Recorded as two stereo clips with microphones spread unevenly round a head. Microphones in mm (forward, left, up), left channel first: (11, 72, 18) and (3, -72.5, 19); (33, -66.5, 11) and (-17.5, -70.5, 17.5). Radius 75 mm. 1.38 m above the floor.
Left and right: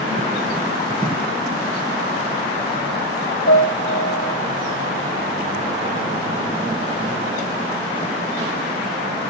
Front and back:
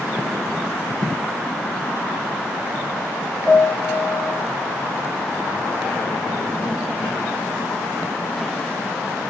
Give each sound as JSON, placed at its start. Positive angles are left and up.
{"t": 3.5, "sound": "a piano", "azimuth_deg": 100, "distance_m": 3.0}